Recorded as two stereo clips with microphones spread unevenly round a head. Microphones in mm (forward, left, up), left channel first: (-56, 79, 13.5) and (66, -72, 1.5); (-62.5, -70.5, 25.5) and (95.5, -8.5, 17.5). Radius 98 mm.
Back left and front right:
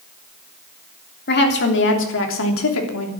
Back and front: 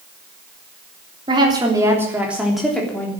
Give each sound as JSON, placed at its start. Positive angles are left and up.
{"t": 1.3, "sound": "a woman speaking", "azimuth_deg": 90, "distance_m": 3.5}